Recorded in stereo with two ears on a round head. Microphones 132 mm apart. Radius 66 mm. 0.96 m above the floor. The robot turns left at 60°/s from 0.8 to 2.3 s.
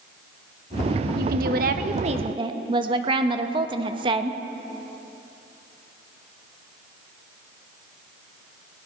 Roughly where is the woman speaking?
Right.